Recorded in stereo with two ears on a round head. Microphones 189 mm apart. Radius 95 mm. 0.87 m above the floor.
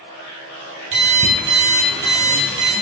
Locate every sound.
0.9 s an alarm clock: 55° right (ahead or behind), 3.5 m